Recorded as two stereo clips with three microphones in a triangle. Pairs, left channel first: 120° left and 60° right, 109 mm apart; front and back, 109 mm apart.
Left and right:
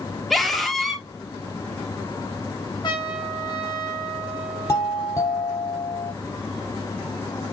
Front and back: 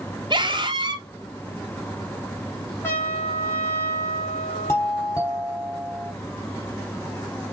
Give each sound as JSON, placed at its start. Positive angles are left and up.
{"t": 0.3, "sound": "a scream", "azimuth_deg": -150, "distance_m": 1.8}
{"t": 2.8, "sound": "a trumpet", "azimuth_deg": 70, "distance_m": 5.5}
{"t": 4.7, "sound": "a doorbell", "azimuth_deg": 65, "distance_m": 5.0}